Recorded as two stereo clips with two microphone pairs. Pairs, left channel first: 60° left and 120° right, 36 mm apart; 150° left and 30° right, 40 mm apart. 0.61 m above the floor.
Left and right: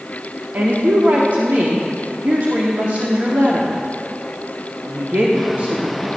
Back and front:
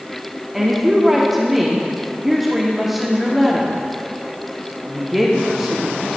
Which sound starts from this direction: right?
A woman speaking, at 0.5 s.